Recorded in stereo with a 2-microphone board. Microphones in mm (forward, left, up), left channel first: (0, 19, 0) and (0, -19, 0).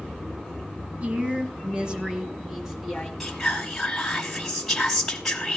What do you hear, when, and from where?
1.0 s a woman speaking: 35° right (ahead or behind), 1.4 m; by 3.1 s centre (ahead or behind), 1.8 m
3.2 s whispering: 5° left (ahead or behind), 1.1 m